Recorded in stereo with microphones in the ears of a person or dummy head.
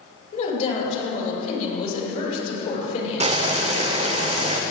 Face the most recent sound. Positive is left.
turn(degrees=-40)  # may be behind; listen again after turning